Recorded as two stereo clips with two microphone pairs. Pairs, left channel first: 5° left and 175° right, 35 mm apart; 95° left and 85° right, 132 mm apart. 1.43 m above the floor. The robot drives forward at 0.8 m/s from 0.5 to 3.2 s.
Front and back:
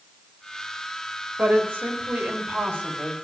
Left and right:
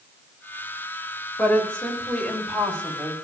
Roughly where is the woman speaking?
Behind.